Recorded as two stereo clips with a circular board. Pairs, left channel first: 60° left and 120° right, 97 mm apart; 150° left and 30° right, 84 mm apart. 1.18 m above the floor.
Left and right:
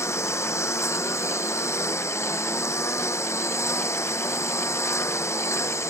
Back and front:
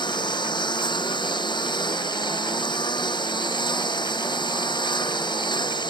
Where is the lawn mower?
120° left.